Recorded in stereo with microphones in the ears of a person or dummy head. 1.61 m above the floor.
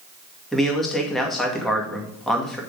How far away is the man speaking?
About 2.0 m.